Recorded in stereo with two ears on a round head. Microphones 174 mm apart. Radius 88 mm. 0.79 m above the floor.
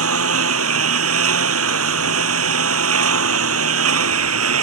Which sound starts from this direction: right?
A lawn mower, at 0.0 s.